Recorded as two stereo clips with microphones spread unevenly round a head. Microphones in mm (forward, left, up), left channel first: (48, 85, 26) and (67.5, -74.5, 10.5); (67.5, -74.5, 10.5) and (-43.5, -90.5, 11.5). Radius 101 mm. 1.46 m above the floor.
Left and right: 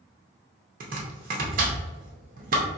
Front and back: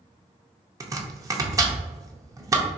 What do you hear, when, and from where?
0.8 s chopping: 120° right, 0.6 m